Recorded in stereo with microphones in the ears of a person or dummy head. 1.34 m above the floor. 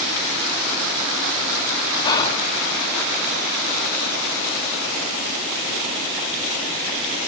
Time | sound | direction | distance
2.0 | whispering | 15° left (ahead or behind) | 1.1 m